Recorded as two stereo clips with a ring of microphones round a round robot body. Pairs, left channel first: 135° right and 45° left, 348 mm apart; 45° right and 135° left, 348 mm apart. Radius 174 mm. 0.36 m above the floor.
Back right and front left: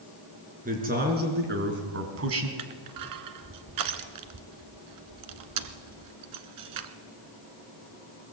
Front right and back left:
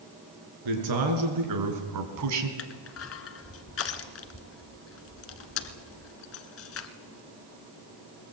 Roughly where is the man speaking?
Left.